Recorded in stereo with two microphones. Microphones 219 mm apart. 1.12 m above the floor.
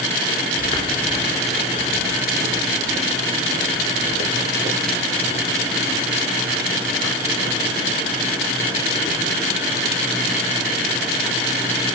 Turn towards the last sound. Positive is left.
turn(degrees=-60)  # may be behind; listen again after turning